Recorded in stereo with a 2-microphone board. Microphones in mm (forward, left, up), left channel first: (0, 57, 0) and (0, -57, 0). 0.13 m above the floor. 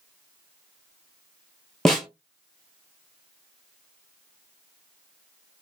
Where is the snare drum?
5° left (ahead or behind), 0.9 m.